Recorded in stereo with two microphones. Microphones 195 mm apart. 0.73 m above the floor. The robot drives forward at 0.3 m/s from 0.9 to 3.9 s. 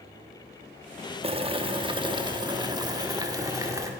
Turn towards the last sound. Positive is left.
turn(degrees=-15)  # may be behind; listen again after turning